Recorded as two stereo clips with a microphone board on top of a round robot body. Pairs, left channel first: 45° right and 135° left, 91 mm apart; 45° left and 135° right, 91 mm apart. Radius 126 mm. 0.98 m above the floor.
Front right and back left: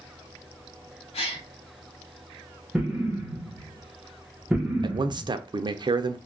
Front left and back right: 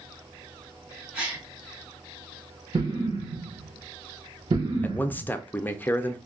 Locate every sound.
1.1 s a gasp: 55° right, 0.6 m
2.7 s an explosion: 150° right, 1.1 m
4.8 s a man speaking: 115° left, 0.6 m